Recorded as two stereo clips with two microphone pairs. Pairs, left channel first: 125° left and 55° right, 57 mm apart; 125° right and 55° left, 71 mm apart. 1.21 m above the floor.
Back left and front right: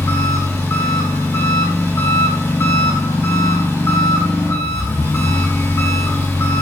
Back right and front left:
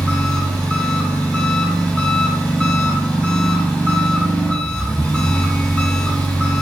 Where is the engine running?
160° left, 3.5 m.